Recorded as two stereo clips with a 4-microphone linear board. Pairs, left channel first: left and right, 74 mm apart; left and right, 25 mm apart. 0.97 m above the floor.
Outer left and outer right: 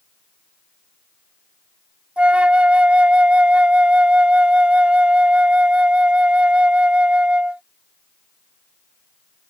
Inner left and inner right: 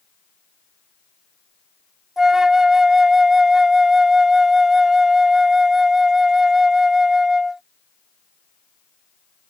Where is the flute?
15° right (ahead or behind).